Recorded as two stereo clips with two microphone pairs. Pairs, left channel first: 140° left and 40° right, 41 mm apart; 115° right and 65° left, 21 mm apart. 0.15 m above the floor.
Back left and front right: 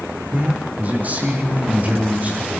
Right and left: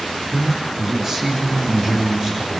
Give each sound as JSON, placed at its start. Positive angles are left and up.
{"t": 0.3, "sound": "a man speaking", "azimuth_deg": 5, "distance_m": 6.0}